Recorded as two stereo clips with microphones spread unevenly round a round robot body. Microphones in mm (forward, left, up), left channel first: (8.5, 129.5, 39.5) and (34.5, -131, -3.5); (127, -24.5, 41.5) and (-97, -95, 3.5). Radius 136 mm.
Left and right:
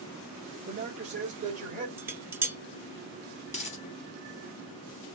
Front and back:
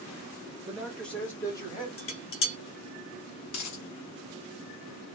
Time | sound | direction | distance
0.7 | a man speaking | 90° right | 1.5 m
2.0 | dishes clattering | 10° right | 0.9 m
3.5 | a dropped coin | 35° left | 0.8 m